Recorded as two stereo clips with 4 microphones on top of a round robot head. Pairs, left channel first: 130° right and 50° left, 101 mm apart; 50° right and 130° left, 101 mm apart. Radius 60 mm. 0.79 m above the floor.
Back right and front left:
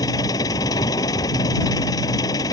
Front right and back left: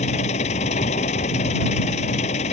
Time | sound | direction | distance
0.0 | an engine running | 70° right | ?